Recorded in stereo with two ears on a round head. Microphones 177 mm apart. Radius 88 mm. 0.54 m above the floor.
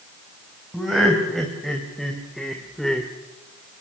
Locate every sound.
0.7 s laughter: centre (ahead or behind), 4 m; by 3.1 s 5° left (ahead or behind), 1.8 m